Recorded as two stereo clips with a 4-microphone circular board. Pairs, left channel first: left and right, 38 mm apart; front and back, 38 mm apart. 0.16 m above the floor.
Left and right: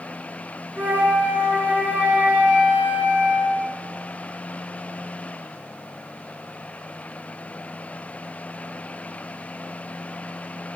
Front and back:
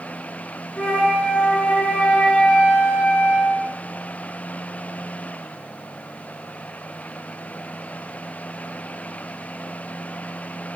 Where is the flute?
55° right, 0.5 m.